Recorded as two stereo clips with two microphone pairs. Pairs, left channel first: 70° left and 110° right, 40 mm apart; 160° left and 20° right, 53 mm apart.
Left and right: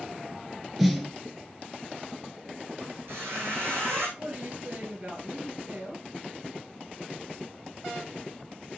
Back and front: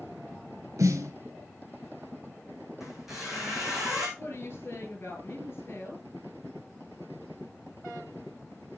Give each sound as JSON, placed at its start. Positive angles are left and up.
{"t": 0.8, "sound": "a snare drum", "azimuth_deg": -25, "distance_m": 1.2}
{"t": 2.8, "sound": "a squeak", "azimuth_deg": -105, "distance_m": 3.5}
{"t": 4.2, "sound": "a woman speaking", "azimuth_deg": -160, "distance_m": 3.5}